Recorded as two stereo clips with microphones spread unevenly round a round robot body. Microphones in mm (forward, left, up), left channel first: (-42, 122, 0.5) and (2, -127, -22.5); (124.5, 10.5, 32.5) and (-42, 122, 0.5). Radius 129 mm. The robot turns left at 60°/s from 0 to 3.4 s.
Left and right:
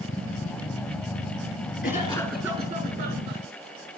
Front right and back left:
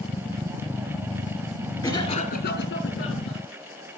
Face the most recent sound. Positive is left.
turn(degrees=-55)